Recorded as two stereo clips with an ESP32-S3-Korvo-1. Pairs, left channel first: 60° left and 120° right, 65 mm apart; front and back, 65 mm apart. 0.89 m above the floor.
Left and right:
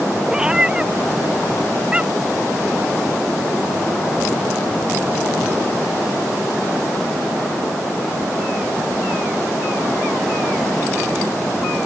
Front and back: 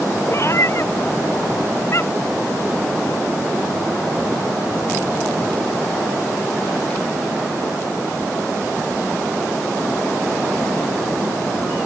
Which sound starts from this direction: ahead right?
A cat meowing, at 0.3 s.